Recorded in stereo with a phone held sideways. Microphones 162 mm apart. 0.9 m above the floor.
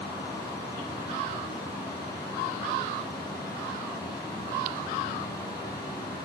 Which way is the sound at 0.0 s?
25° left (ahead or behind).